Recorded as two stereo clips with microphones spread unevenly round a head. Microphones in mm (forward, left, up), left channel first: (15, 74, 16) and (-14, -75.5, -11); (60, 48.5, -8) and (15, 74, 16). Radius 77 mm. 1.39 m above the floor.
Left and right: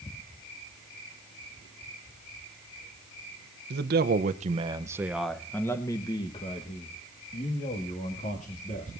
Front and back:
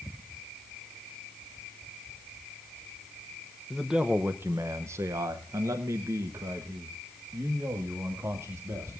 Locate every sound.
3.7 s a man speaking: 125° right, 0.9 m; by 8.9 s 120° left, 3 m